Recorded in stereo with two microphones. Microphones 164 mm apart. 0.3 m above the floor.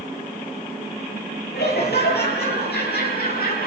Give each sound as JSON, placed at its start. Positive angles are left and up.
{"t": 1.5, "sound": "laughter", "side_deg": 80, "distance_m": 9.0}